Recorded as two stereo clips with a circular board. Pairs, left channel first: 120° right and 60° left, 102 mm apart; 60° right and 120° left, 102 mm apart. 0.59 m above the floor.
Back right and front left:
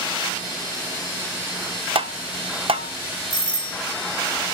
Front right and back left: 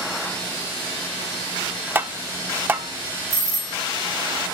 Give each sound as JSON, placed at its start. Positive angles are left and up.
{"t": 1.9, "sound": "tapping", "azimuth_deg": 50, "distance_m": 0.5}
{"t": 3.3, "sound": "a doorbell", "azimuth_deg": -100, "distance_m": 1.9}